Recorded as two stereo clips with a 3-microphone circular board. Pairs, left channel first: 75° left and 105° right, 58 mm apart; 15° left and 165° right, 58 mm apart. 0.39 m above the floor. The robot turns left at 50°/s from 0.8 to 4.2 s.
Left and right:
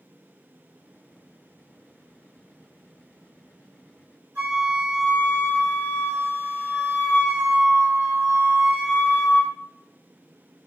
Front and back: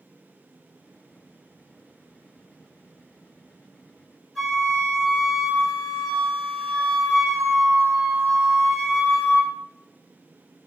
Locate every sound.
4.3 s a flute: 60° right, 1.9 m